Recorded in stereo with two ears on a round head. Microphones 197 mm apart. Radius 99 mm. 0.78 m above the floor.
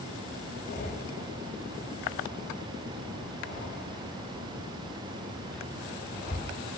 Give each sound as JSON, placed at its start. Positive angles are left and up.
{"t": 0.7, "sound": "breathing", "side_deg": 40, "distance_m": 3.0}